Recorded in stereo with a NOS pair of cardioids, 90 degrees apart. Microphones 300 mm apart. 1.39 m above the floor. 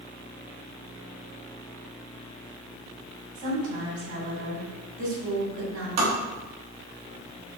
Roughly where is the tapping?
Ahead right.